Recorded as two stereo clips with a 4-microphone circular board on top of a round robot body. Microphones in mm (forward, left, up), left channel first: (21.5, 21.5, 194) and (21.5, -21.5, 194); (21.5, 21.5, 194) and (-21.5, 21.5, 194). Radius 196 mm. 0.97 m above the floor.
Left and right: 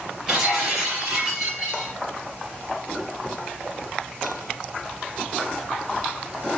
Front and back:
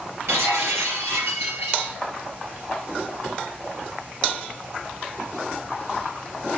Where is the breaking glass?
165° right, 3.5 m.